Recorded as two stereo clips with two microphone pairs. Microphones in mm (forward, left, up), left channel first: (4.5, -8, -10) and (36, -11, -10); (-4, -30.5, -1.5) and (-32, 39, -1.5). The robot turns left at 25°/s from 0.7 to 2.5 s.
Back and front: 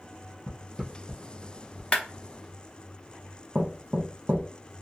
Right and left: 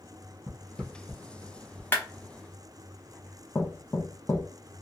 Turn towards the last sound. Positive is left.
turn(degrees=-15)